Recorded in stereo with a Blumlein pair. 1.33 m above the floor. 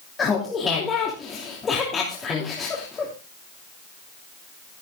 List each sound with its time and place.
0.2 s laughter: 20° left, 3 m